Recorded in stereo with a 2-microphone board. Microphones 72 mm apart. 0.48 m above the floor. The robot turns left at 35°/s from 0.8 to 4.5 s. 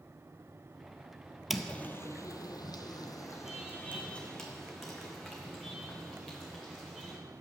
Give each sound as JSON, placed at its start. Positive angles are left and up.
{"t": 1.5, "sound": "footsteps", "side_deg": 0, "distance_m": 0.6}